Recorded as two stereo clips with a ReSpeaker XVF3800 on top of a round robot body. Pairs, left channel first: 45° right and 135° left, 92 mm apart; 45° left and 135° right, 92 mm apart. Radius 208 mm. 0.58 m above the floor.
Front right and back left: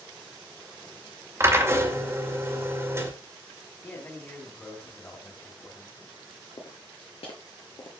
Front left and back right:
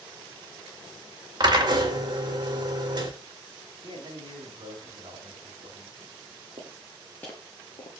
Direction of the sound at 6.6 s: 95° right.